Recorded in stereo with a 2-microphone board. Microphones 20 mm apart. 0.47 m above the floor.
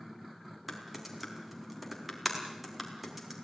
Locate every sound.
0.7 s typing on a keyboard: centre (ahead or behind), 3.5 m